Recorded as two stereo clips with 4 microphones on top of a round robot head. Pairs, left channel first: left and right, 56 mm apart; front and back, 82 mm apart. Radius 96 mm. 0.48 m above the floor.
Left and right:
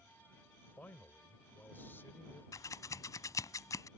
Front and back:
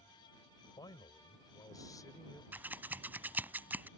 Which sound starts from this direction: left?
Scissors, at 2.5 s.